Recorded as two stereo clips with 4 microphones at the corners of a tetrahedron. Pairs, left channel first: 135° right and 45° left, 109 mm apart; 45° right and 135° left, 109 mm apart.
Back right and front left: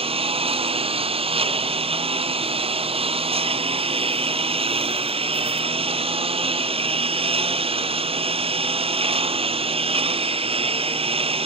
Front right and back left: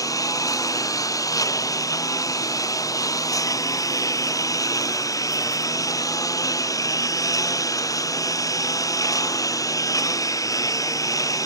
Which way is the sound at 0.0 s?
15° left.